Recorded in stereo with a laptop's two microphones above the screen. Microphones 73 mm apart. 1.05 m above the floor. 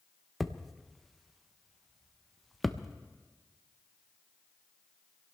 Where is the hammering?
Centre (ahead or behind), 0.5 m.